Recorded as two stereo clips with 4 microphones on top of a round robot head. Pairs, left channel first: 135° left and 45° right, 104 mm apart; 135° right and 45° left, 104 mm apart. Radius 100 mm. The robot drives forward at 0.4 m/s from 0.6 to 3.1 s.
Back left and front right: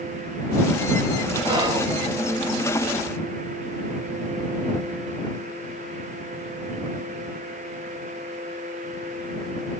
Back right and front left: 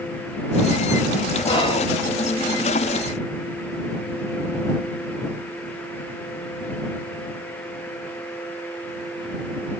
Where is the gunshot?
I don't hear a gunshot.